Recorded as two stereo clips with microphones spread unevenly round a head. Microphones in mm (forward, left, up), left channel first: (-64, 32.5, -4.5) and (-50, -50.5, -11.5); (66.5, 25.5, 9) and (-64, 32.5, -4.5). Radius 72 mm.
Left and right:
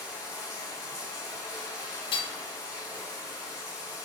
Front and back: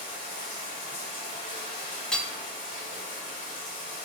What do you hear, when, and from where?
0.0 s running water: straight ahead, 2.5 m
2.1 s hammering: 80° left, 0.9 m